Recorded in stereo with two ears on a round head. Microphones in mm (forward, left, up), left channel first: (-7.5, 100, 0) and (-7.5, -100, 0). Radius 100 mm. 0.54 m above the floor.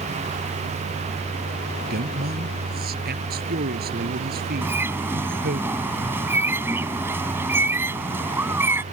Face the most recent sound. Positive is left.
turn(degrees=-10)  # may be behind; listen again after turning